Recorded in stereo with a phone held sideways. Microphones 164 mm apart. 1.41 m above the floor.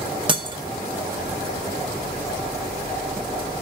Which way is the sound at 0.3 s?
30° right (ahead or behind).